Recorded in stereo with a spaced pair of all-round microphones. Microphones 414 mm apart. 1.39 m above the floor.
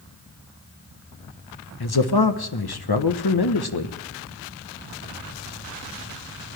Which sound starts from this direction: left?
A man speaking, at 1.8 s.